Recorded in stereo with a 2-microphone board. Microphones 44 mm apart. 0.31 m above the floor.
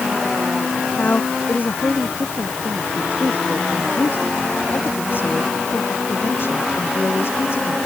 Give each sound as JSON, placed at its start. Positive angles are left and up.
{"t": 1.0, "sound": "a woman speaking", "side_deg": 45}